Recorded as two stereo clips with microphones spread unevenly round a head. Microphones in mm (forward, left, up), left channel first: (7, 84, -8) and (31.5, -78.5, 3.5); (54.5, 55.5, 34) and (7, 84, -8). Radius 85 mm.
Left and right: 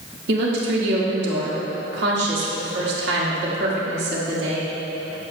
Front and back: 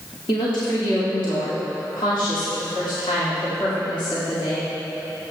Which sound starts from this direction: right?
A woman speaking, at 0.3 s.